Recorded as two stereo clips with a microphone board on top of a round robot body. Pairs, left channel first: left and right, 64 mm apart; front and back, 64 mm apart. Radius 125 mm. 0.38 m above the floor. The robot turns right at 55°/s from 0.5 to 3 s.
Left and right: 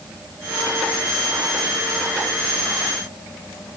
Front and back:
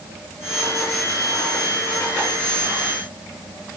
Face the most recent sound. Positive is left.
No sound to turn to.